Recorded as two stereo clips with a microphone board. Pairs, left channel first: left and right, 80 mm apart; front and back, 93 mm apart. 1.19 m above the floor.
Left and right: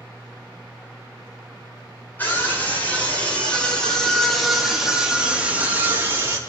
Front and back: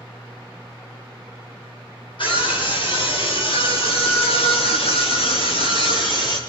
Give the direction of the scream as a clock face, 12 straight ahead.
11 o'clock.